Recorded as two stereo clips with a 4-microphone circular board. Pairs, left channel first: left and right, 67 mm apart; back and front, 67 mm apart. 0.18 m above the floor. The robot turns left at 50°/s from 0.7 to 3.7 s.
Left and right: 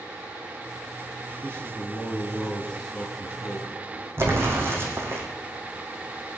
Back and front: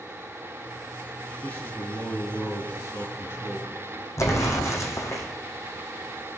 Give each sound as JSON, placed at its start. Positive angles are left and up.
{"t": 1.4, "sound": "a man speaking", "azimuth_deg": -115, "distance_m": 2.0}
{"t": 4.2, "sound": "an explosion", "azimuth_deg": -140, "distance_m": 3.0}